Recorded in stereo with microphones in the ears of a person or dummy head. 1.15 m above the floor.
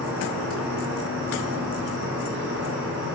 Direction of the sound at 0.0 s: 60° right (ahead or behind).